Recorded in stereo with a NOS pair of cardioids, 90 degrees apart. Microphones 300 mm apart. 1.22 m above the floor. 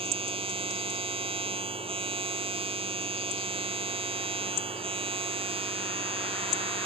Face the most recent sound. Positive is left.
turn(degrees=-20)